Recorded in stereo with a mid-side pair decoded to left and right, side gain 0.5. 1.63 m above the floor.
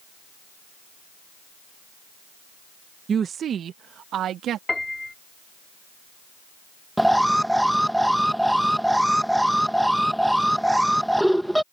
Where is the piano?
15° left.